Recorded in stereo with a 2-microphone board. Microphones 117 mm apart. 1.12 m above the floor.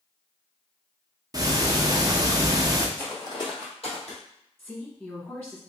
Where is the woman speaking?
15° left (ahead or behind), 1.3 m.